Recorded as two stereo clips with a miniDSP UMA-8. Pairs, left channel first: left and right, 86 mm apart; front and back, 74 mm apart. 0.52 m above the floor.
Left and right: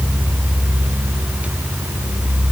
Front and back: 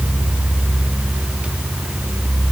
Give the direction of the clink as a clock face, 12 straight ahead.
I don't hear a clink.